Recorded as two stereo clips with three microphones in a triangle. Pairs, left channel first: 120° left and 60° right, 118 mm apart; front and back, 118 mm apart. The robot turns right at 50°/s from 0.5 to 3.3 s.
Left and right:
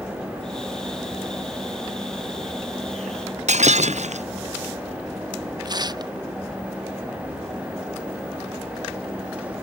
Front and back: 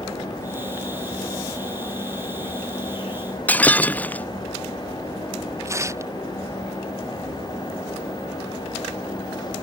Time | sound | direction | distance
3.5 | breaking glass | 75° right | ?
5.7 | tearing paper | 115° right | ?